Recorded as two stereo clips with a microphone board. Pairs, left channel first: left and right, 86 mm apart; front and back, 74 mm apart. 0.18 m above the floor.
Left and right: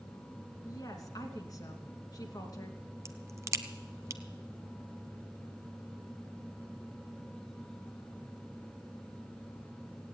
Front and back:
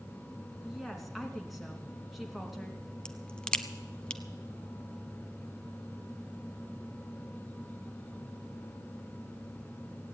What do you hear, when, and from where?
0.6 s a woman speaking: 95° left, 2.5 m
3.0 s a crack: 70° right, 0.7 m